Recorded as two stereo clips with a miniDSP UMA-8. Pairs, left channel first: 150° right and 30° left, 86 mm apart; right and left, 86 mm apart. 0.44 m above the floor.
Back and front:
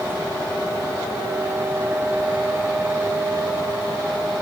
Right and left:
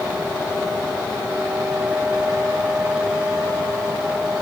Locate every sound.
Only background noise.